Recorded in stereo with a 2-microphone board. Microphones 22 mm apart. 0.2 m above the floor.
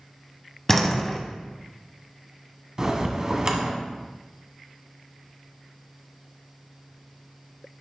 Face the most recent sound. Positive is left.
turn(degrees=-30)  # may be behind; listen again after turning